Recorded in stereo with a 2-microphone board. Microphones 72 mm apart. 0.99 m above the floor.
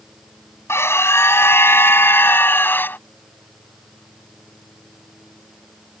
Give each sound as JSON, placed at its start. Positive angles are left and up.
{"t": 0.7, "sound": "a scream", "side_deg": 35}